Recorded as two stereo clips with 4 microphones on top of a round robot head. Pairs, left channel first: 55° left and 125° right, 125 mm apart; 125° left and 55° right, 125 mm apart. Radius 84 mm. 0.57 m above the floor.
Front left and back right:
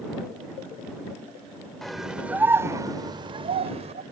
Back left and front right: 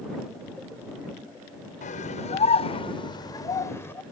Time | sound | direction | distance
1.8 | a scream | 140° left | ?